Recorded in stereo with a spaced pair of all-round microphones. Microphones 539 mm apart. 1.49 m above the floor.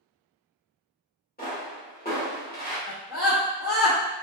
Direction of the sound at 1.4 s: 15° left (ahead or behind).